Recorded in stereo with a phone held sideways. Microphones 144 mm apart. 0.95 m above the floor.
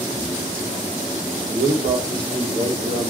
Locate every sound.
1.5 s a man speaking: 50° right (ahead or behind), 3 m